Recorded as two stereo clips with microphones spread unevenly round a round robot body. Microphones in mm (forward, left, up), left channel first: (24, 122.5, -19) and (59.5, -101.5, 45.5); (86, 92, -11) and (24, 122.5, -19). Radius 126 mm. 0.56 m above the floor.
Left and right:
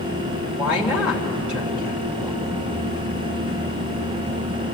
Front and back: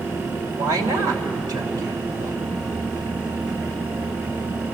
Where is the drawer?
No drawer in this recording.